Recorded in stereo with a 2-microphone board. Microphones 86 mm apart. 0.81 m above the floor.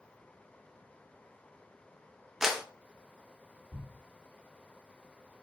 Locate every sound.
2.4 s a clap: 5° right (ahead or behind), 0.5 m
3.7 s a thud: 10° right (ahead or behind), 0.8 m